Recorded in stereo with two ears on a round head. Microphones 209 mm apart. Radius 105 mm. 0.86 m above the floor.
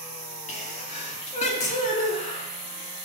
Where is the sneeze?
30° left (ahead or behind), 2 m.